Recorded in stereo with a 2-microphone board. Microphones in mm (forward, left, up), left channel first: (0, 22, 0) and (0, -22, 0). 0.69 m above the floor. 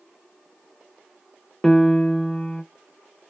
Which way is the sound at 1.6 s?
5° left (ahead or behind).